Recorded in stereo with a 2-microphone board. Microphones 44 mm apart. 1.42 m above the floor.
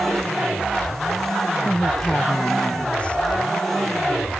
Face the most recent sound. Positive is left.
turn(degrees=30)  # may be behind; listen again after turning